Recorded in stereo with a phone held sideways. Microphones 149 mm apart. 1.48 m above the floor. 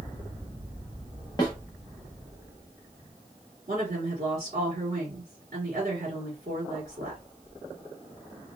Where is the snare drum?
25° left (ahead or behind), 0.9 m.